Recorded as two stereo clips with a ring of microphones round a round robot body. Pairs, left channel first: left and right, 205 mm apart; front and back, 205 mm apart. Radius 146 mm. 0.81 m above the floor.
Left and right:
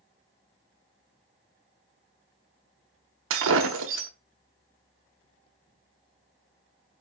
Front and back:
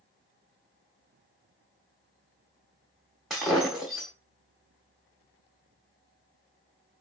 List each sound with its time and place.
3.3 s breaking glass: 90° right, 0.8 m